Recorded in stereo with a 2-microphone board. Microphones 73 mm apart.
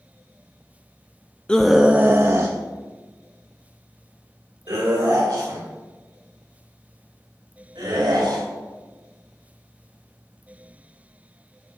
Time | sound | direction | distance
1.5 | a scream | 15° left (ahead or behind) | 0.6 m